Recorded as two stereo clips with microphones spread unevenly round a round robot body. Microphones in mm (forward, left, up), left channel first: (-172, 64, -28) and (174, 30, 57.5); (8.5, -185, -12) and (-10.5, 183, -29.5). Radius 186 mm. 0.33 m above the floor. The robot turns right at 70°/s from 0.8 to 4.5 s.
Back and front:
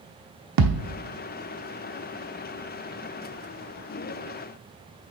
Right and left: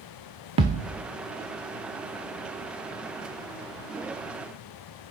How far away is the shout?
No shout in this recording.